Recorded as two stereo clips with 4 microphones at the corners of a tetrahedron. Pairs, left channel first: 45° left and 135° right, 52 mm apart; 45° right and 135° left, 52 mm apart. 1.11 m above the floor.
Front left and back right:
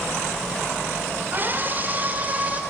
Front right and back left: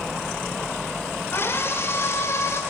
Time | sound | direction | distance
1.3 | a scream | 85° right | 4 m